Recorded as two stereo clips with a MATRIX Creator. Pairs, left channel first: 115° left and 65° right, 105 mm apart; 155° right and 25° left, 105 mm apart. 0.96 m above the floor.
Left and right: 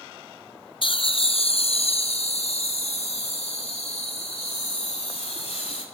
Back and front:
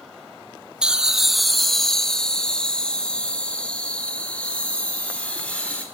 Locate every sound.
0.8 s laughter: 100° left, 0.7 m; by 5.8 s 125° left, 3 m